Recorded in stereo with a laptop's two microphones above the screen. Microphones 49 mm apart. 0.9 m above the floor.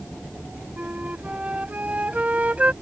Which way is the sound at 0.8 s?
30° right (ahead or behind).